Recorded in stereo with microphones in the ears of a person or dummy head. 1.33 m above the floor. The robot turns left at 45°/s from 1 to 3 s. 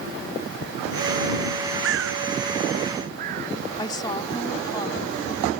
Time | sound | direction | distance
1.8 | a bird | 65° right (ahead or behind) | ?
3.8 | a woman speaking | 25° left (ahead or behind) | ?